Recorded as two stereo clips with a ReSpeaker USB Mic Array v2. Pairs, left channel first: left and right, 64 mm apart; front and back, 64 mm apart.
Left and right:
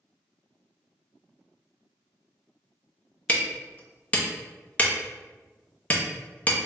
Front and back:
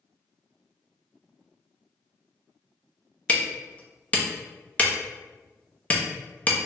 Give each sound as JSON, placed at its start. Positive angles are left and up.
{"t": 3.3, "sound": "hammering", "azimuth_deg": 45, "distance_m": 0.6}